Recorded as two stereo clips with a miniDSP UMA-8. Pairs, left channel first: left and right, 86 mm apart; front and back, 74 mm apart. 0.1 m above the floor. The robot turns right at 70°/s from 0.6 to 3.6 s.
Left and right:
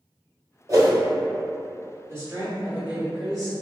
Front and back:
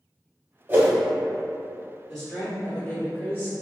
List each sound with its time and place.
0.7 s a whoosh: 130° right, 1.5 m; by 0.9 s 115° right, 1.5 m
2.1 s a woman speaking: 95° right, 1.5 m; by 3.5 s 5° left, 1.5 m